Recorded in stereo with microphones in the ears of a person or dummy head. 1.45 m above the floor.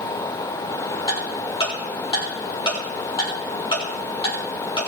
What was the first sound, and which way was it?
Ticking, 25° left (ahead or behind).